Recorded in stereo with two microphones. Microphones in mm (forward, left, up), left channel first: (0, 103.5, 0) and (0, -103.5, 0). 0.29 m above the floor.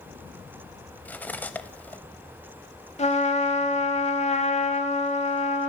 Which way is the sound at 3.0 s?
35° left (ahead or behind).